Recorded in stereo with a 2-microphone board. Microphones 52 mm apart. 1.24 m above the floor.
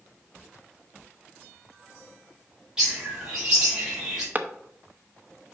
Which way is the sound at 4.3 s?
30° right (ahead or behind).